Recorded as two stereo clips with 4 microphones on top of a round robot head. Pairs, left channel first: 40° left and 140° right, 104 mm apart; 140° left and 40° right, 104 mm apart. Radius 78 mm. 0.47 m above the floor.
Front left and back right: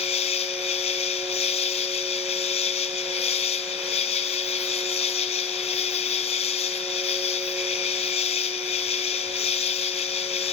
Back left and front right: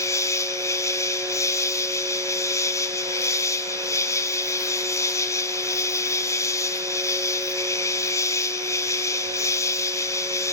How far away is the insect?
About 0.9 m.